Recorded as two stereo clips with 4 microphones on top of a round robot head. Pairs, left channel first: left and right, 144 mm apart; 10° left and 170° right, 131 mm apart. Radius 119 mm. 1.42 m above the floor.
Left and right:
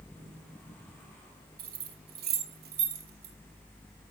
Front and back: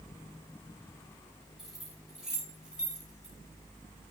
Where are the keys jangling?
85° right, 4 m.